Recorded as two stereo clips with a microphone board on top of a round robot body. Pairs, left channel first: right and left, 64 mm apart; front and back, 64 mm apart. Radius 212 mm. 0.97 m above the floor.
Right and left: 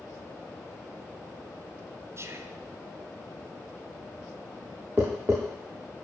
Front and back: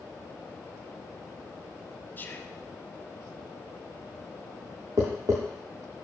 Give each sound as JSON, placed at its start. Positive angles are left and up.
{"t": 2.2, "sound": "whispering", "azimuth_deg": 55, "distance_m": 1.0}
{"t": 5.0, "sound": "tapping", "azimuth_deg": 155, "distance_m": 0.6}